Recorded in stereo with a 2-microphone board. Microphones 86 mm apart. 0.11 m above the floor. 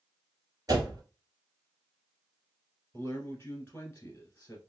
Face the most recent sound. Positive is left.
turn(degrees=25)  # may be behind; listen again after turning